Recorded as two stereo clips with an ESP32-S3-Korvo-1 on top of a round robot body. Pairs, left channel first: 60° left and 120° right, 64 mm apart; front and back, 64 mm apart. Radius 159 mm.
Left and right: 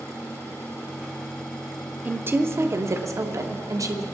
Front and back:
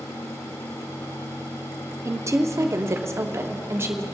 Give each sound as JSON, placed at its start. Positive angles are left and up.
{"t": 2.0, "sound": "a woman speaking", "azimuth_deg": -170, "distance_m": 1.0}